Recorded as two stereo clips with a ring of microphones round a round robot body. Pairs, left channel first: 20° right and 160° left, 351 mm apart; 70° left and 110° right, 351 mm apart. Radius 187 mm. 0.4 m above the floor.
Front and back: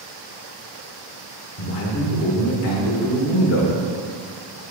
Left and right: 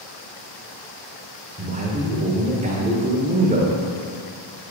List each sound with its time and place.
1.6 s a man speaking: 50° right, 1.3 m